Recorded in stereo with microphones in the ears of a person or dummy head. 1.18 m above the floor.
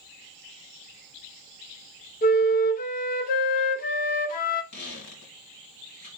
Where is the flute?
40° left (ahead or behind), 0.6 m.